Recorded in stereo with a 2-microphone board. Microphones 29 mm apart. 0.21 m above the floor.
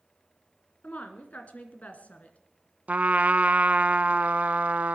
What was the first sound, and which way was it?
A woman speaking, 55° left (ahead or behind).